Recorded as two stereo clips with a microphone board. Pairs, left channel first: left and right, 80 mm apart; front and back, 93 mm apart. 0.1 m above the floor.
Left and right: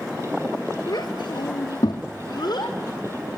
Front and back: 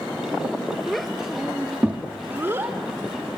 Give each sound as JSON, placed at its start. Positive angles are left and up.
{"t": 0.9, "sound": "a child speaking", "azimuth_deg": 85, "distance_m": 1.2}